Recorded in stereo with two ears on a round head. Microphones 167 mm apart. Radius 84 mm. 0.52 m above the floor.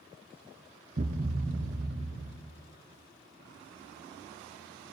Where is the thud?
40° right (ahead or behind), 0.8 m.